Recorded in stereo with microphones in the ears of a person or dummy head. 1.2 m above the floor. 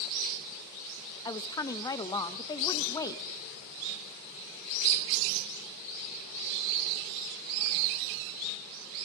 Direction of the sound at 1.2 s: 20° left (ahead or behind).